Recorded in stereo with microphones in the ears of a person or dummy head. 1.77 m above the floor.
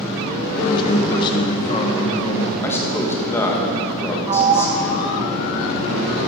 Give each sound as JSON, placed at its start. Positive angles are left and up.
{"t": 0.6, "sound": "a man speaking", "side_deg": 30, "distance_m": 2.0}
{"t": 2.6, "sound": "a man speaking", "side_deg": 10, "distance_m": 1.9}
{"t": 4.3, "sound": "a sliding door", "side_deg": -35, "distance_m": 0.9}